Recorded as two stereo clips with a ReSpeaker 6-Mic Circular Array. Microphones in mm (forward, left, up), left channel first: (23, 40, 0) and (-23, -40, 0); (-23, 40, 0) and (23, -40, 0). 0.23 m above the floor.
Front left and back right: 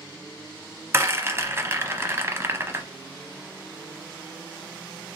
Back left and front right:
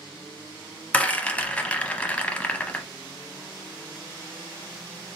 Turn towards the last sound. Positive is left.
turn(degrees=-170)